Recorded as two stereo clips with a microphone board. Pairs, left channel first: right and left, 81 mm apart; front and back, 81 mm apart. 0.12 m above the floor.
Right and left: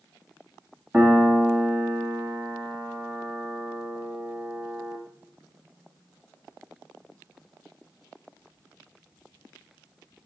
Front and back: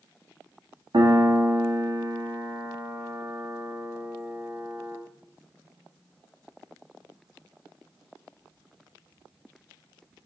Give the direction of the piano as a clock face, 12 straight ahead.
7 o'clock.